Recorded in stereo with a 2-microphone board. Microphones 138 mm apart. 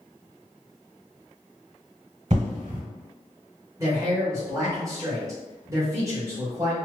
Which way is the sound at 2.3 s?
60° right (ahead or behind).